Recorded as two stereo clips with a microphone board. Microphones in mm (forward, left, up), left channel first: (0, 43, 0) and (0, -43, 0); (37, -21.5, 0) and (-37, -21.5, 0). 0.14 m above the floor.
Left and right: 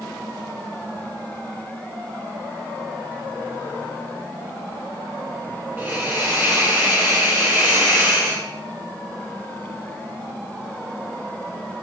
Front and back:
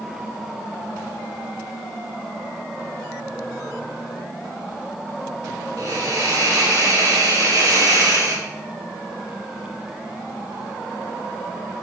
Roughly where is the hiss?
Behind right.